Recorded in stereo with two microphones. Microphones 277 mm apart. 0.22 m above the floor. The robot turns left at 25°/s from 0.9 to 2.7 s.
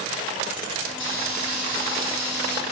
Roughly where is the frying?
Right.